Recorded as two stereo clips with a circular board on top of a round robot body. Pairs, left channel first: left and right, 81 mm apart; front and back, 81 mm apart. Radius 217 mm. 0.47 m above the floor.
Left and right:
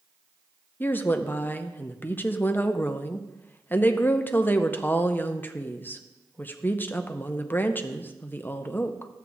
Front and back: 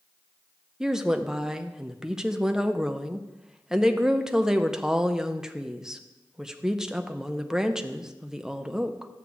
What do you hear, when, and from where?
0.8 s a woman speaking: 105° left, 0.9 m